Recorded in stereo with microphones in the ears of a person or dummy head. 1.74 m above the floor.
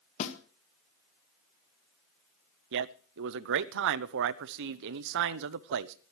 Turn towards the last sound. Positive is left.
turn(degrees=-65)  # may be behind; listen again after turning